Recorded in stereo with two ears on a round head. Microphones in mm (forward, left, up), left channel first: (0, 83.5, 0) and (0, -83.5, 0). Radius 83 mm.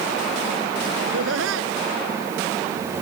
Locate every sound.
1.0 s laughter: 80° right